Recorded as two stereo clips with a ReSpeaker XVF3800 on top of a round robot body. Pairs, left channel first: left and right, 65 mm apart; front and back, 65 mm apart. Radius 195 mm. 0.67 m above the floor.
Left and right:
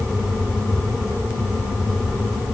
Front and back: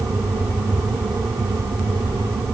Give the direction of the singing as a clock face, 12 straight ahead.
I don't hear singing.